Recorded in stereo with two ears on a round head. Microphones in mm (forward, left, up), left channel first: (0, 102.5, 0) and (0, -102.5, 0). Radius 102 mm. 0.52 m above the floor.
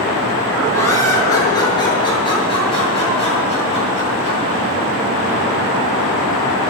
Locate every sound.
0.7 s laughter: 15° left (ahead or behind), 7 m; by 4.4 s 30° left (ahead or behind), 10 m